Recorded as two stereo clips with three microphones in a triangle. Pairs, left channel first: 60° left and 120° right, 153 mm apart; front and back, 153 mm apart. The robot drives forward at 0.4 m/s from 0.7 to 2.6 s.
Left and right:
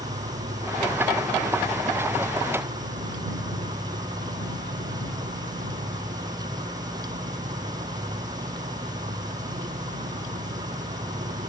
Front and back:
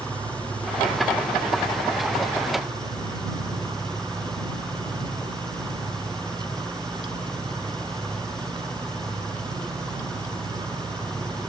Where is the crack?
I don't hear a crack.